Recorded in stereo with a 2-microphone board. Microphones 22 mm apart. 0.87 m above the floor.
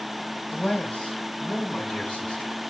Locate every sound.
0.5 s a man speaking: 60° left (ahead or behind), 4 m; by 2.6 s 45° left (ahead or behind), 4.5 m